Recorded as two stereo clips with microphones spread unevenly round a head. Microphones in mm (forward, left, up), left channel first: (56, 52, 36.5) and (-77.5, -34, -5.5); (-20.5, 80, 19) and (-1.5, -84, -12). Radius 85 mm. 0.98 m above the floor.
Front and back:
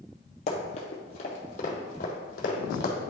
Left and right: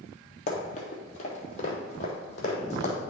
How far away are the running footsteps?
About 1.8 m.